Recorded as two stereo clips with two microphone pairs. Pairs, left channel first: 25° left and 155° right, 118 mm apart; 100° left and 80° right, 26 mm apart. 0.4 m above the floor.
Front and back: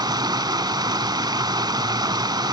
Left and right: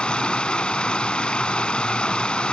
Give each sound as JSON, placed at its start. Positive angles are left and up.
{"t": 0.0, "sound": "running water", "azimuth_deg": 150, "distance_m": 0.8}